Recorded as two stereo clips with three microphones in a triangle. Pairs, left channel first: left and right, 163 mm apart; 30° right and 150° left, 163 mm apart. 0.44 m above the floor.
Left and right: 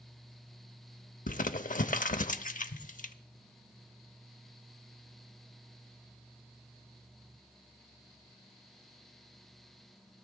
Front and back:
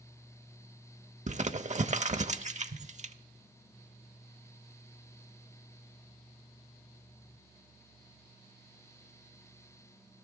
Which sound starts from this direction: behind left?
Crumpling, at 1.3 s.